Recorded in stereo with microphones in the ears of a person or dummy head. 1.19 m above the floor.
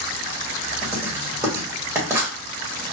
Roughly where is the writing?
Centre.